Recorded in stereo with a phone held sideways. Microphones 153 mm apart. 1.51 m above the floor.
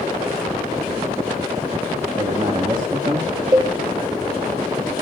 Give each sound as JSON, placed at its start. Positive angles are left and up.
{"t": 2.2, "sound": "a man speaking", "side_deg": -30, "distance_m": 2.5}
{"t": 3.5, "sound": "a cowbell", "side_deg": -25, "distance_m": 1.9}